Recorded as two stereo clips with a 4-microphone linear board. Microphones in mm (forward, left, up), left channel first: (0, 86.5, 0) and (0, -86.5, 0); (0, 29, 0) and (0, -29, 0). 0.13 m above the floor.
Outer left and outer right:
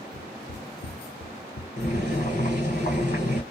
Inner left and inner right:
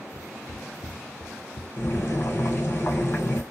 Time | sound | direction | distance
0.1 | footsteps | 75° left (ahead or behind) | 1.8 m
1.8 | boiling | 45° left (ahead or behind) | 2.5 m